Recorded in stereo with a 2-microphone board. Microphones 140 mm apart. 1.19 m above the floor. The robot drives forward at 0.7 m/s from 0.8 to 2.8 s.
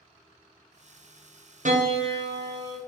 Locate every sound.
1.6 s a piano: 65° right (ahead or behind), 0.7 m; by 2.8 s 30° right (ahead or behind), 1.2 m